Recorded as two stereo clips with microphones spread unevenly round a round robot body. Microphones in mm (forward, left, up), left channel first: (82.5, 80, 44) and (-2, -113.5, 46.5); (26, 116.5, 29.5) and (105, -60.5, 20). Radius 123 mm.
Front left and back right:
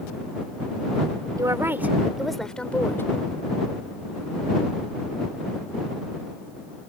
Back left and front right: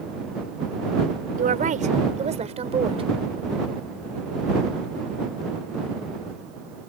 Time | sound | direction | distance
1.4 | a woman speaking | 45° right | ?